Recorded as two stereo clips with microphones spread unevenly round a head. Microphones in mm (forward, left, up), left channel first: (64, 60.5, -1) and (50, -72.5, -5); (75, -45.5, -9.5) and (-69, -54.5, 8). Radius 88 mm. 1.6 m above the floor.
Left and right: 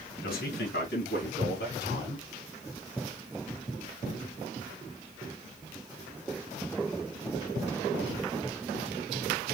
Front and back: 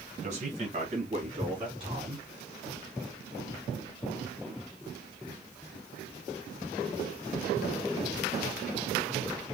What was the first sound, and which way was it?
A man speaking, 130° left.